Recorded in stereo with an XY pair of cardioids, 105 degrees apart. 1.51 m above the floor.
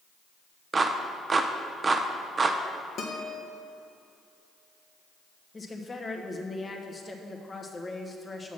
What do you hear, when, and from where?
0.7 s a clap: 35° right, 0.7 m
3.0 s a guitar: 60° left, 1.3 m
5.5 s a woman speaking: 25° left, 1.2 m